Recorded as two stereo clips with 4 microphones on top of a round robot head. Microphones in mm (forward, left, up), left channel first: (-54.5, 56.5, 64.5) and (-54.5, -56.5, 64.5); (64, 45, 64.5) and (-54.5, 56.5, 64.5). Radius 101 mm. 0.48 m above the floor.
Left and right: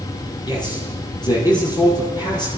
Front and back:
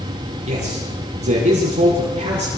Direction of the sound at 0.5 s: 140° left.